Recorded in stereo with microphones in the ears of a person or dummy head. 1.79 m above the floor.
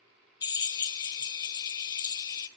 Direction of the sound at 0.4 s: 20° left (ahead or behind).